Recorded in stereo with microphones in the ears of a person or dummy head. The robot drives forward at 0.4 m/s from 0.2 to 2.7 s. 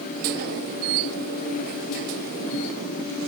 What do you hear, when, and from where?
Only background noise.